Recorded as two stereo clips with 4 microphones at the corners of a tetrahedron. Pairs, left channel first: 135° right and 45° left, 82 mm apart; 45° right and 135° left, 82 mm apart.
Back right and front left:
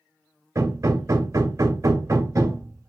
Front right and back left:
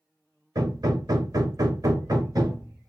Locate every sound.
0.6 s hammering: 95° left, 0.9 m